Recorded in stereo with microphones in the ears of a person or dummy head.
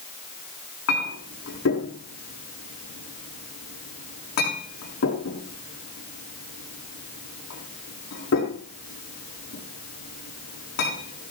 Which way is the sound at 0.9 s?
60° left (ahead or behind).